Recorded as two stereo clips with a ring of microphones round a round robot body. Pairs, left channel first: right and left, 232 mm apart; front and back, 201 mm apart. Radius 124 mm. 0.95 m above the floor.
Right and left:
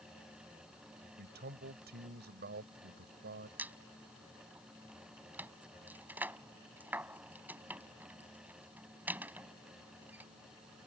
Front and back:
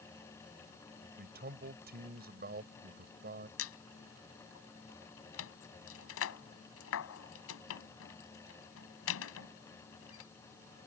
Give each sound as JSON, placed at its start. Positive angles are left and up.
{"t": 1.2, "sound": "a man speaking", "azimuth_deg": 140}
{"t": 3.6, "sound": "a squeak", "azimuth_deg": 5}